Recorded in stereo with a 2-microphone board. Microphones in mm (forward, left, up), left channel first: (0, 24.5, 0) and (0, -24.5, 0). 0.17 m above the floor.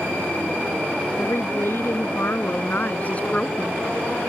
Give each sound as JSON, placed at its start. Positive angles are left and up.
{"t": 1.2, "sound": "a woman speaking", "side_deg": 50}